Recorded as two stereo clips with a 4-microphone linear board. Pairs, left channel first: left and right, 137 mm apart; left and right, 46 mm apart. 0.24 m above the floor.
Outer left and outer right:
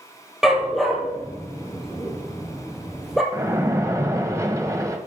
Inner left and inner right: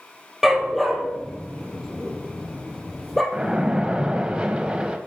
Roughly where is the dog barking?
Centre.